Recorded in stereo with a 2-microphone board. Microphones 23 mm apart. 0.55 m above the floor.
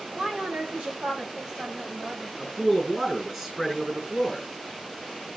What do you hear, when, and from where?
0.1 s a woman speaking: 75° right (ahead or behind), 4.5 m; by 2.3 s 60° right (ahead or behind), 4 m
2.4 s a man speaking: 20° right (ahead or behind), 6.5 m